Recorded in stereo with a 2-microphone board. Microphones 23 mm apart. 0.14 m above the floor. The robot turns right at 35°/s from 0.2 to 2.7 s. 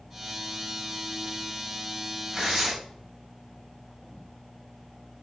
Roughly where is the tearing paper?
Centre.